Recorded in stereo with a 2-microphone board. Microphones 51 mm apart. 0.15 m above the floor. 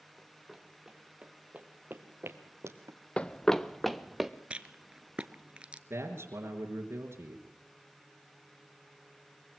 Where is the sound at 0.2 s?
Centre (ahead or behind), 3 m; by 3.0 s 70° right (ahead or behind), 2 m.